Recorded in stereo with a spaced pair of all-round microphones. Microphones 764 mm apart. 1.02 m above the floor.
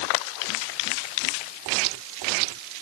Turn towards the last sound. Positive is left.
No sound to turn to.